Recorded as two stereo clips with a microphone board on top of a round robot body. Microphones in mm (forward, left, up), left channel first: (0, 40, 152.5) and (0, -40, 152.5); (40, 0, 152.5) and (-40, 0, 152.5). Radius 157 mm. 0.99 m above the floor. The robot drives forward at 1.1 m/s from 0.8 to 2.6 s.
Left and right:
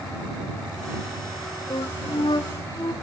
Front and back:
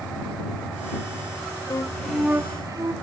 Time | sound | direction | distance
1.7 | a flute | 50° left | 0.8 m